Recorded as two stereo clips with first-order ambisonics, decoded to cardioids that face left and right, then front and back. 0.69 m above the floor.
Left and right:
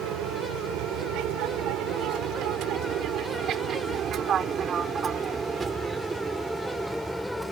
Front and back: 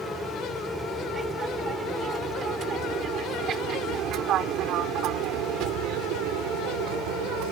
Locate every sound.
0.0 s an aircraft: 100° right; by 7.5 s 175° left